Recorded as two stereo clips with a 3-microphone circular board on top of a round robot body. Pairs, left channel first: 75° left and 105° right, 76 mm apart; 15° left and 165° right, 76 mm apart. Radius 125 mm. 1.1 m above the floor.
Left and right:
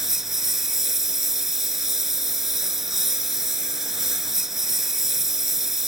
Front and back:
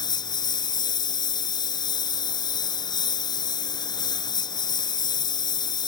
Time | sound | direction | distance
0.0 | a lawn mower | 20° right | ?